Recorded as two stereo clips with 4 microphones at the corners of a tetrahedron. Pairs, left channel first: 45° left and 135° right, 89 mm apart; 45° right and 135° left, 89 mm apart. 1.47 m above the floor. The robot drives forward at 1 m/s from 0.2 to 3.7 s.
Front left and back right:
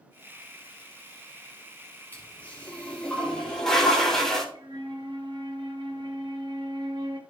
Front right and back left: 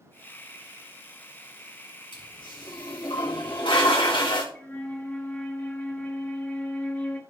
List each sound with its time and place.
2.1 s a toilet flushing: 25° right, 4 m; by 4.5 s 40° right, 2.5 m
4.5 s a flute: 115° right, 1.7 m